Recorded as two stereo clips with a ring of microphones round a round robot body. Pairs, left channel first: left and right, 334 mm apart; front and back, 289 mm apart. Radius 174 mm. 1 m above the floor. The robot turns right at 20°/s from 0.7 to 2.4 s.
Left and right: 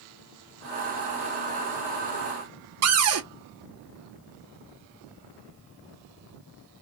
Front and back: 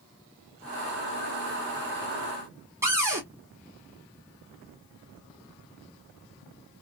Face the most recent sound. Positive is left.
turn(degrees=-100)